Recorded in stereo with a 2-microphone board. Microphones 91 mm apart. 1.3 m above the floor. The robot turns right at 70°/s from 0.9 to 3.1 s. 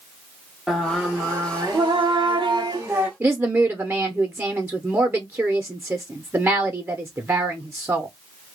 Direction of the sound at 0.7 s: 175° right.